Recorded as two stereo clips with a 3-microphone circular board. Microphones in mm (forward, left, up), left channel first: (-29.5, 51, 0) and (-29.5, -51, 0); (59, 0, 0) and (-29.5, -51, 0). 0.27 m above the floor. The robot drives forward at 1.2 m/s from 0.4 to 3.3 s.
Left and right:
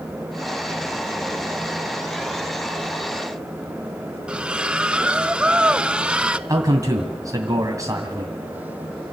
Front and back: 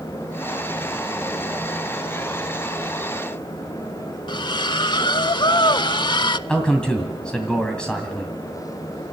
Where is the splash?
10° right, 0.5 m.